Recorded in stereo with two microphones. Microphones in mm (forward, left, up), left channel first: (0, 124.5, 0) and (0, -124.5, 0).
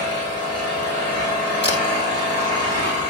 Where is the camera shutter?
50° left (ahead or behind), 2.5 m.